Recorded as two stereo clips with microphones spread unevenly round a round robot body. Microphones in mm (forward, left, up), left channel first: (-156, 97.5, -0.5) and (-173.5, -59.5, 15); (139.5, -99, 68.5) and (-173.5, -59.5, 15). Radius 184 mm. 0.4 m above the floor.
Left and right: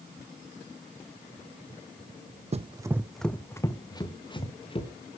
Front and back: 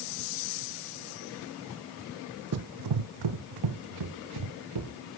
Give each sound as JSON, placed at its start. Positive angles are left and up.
{"t": 2.5, "sound": "running footsteps", "azimuth_deg": -140, "distance_m": 1.0}